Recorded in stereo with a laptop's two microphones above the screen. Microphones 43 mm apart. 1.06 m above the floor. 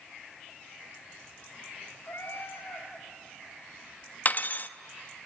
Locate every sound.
2.0 s a cat meowing: 70° left (ahead or behind), 2 m
4.2 s cutlery clinking: 40° left (ahead or behind), 0.5 m